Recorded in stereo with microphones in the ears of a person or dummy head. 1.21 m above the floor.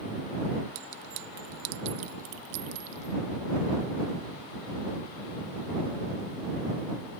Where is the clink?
65° right (ahead or behind).